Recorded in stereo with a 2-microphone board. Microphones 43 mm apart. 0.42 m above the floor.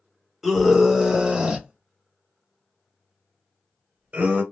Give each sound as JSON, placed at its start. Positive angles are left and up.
{"t": 0.4, "sound": "a scream", "side_deg": 0, "distance_m": 1.2}